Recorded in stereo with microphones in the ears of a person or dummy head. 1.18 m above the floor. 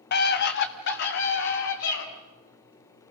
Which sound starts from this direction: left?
A scream, at 0.1 s.